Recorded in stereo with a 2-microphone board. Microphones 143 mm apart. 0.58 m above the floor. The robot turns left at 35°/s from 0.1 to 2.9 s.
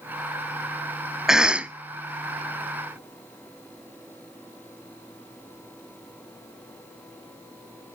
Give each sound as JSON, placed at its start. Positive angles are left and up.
{"t": 1.3, "sound": "a cough", "side_deg": -5, "distance_m": 0.7}